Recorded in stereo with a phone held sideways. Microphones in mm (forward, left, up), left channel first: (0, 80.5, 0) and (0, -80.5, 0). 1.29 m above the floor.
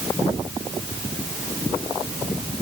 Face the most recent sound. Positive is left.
No sound to turn to.